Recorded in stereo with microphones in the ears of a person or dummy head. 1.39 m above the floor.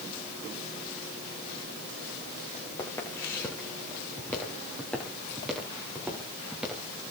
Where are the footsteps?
15° left (ahead or behind), 8.5 m; by 7.1 s 10° right (ahead or behind), 11 m.